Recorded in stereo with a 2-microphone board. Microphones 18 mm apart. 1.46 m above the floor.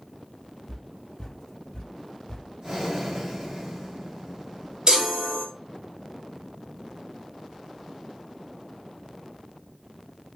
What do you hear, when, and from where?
0.7 s footsteps: 15° left (ahead or behind), 1.9 m; by 2.5 s 40° left (ahead or behind), 1.8 m
2.6 s breathing: 35° right (ahead or behind), 2.5 m
4.9 s a chime: 50° right (ahead or behind), 2 m